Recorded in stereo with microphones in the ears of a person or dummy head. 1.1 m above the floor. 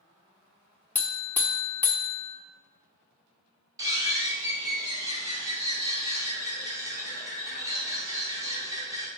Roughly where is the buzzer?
Centre.